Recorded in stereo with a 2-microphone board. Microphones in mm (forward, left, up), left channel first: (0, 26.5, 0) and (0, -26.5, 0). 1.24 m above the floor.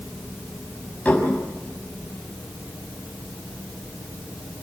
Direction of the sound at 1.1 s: 30° left (ahead or behind).